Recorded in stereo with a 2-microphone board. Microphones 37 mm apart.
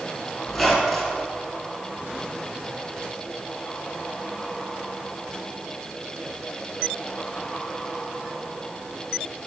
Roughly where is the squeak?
Centre.